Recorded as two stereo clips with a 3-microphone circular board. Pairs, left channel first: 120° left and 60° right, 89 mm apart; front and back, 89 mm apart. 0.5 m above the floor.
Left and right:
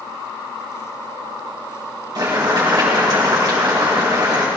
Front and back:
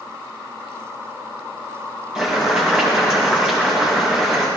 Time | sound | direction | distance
2.1 | boiling | 100° right | 8 m